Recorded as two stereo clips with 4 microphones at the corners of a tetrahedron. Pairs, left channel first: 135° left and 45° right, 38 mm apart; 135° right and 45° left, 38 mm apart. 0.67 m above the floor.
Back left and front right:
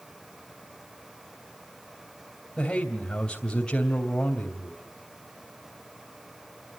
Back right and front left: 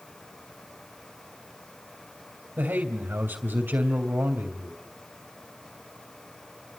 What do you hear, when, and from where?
2.6 s a man speaking: 70° left, 2.5 m